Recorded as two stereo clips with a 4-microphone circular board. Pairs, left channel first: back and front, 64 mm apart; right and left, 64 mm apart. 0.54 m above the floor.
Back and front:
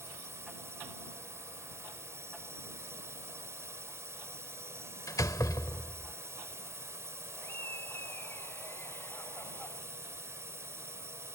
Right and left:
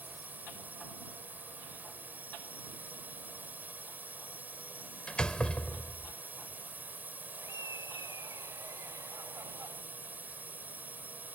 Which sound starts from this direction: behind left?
Laughter, at 7.4 s.